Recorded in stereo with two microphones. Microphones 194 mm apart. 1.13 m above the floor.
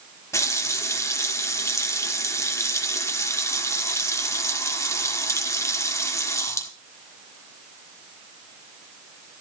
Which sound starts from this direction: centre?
A running tap, at 0.3 s.